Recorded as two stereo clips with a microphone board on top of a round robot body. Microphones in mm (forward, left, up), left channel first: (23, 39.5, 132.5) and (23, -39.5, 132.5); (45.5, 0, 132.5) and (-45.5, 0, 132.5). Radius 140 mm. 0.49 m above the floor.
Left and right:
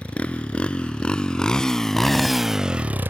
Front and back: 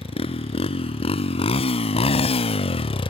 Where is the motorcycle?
15° left; by 3.1 s 25° right.